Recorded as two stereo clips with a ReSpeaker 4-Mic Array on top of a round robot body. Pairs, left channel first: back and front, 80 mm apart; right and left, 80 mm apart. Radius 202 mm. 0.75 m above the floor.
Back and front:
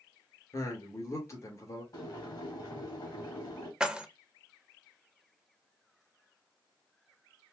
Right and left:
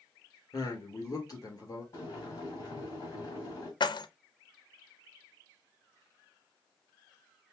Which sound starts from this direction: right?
Keys jangling, at 3.8 s.